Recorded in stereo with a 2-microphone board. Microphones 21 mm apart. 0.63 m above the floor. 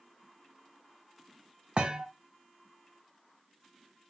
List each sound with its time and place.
1.8 s a thud: 45° right (ahead or behind), 0.7 m